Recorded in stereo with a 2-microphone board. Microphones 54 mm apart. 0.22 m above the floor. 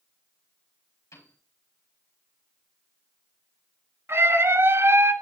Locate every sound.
1.1 s a piano: 75° left (ahead or behind), 9 m
4.1 s a scream: 55° right (ahead or behind), 1.8 m